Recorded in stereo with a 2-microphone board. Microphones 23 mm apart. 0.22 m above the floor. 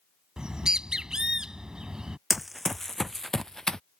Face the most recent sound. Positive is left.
turn(degrees=30)  # may be behind; listen again after turning